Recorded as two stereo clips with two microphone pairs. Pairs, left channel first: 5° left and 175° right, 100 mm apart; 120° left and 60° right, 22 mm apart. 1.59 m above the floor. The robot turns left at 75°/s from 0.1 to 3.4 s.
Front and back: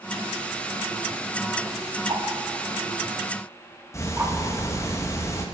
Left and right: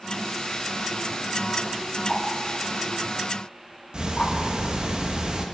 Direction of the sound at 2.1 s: 140° right.